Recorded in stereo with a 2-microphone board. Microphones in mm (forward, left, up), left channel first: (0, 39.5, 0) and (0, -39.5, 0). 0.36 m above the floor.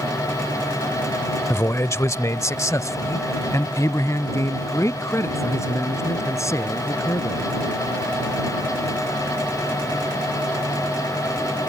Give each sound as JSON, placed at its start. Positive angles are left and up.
{"t": 1.5, "sound": "a man speaking", "side_deg": 35}